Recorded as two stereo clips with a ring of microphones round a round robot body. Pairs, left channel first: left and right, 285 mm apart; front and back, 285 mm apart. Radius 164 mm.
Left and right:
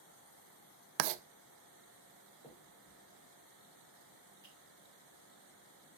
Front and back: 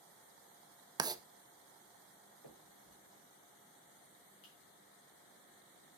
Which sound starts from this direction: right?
Writing, at 1.0 s.